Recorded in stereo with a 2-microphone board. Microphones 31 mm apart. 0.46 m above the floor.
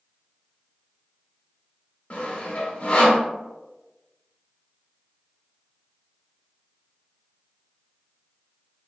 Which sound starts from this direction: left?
Sawing, at 2.1 s.